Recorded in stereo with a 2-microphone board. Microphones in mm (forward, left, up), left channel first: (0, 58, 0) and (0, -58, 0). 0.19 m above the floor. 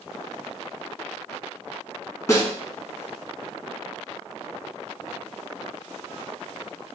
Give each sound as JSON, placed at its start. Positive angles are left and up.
{"t": 2.3, "sound": "a snare drum", "side_deg": 25, "distance_m": 0.7}